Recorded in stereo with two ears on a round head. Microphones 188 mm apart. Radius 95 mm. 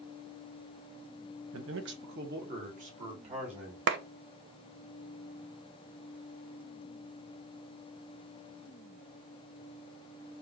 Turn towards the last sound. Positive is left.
turn(degrees=-60)  # may be behind; listen again after turning